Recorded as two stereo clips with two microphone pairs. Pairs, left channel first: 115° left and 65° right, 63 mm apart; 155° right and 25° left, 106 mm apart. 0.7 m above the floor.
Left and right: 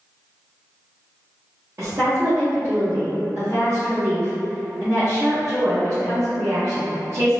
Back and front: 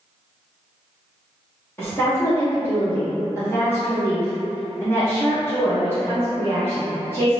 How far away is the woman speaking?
About 0.9 m.